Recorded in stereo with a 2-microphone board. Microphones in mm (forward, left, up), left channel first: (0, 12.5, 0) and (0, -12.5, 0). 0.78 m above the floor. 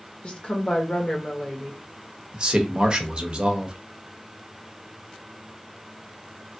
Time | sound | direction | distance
0.2 | a woman speaking | 40° left (ahead or behind) | 1.2 m
2.3 | a man speaking | 35° right (ahead or behind) | 0.8 m